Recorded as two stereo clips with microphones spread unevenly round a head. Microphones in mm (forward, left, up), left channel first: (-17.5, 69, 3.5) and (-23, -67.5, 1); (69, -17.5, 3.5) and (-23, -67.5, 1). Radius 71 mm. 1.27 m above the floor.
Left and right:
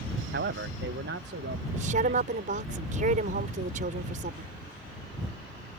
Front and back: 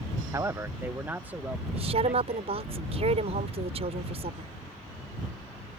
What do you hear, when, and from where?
0.3 s a man speaking: 90° right; by 2.7 s 75° right
1.7 s a woman speaking: 125° right